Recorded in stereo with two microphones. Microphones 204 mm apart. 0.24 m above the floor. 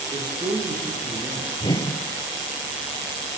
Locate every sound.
0.1 s a man speaking: 20° right (ahead or behind), 8 m
1.6 s a whoosh: 20° left (ahead or behind), 1.3 m